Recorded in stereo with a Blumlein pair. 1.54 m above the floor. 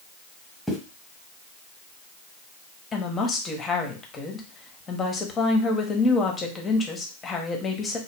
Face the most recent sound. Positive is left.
turn(degrees=20)